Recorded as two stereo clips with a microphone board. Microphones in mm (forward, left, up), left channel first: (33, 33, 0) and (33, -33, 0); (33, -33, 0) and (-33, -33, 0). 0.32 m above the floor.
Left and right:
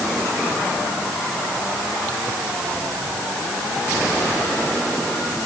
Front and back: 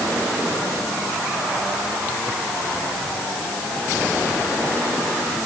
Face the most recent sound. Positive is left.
No sound to turn to.